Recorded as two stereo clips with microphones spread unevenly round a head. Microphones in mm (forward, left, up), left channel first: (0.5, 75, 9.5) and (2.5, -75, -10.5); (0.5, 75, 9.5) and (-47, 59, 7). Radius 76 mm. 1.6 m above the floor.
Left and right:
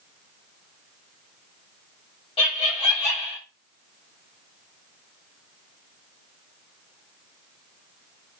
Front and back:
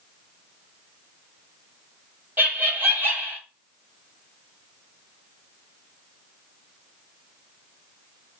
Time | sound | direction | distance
2.4 | laughter | 150° left | 2 m